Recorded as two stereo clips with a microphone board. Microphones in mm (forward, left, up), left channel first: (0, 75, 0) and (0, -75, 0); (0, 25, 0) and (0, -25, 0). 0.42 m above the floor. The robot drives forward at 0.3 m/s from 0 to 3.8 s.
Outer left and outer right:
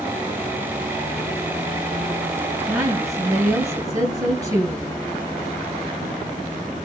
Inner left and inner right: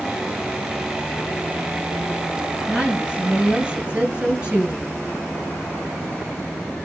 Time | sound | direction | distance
2.7 | a woman speaking | 20° right (ahead or behind) | 9 m